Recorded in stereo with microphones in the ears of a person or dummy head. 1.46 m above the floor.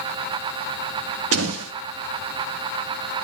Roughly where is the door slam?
Right.